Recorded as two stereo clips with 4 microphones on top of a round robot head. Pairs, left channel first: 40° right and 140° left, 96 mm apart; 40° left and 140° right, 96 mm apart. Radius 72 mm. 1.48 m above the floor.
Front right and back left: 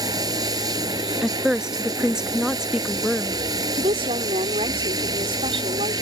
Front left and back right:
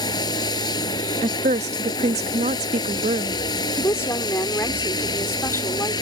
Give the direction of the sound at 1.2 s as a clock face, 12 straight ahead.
4 o'clock.